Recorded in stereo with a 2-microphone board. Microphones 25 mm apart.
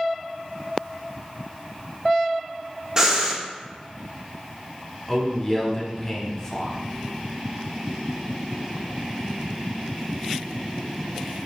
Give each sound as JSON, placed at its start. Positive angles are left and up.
{"t": 3.0, "sound": "breathing", "side_deg": -25, "distance_m": 0.8}
{"t": 5.1, "sound": "a man speaking", "side_deg": 20, "distance_m": 1.1}